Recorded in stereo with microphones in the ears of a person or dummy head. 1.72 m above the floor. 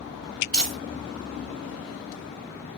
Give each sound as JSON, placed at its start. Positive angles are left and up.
{"t": 0.5, "sound": "crumpling", "side_deg": 5, "distance_m": 2.0}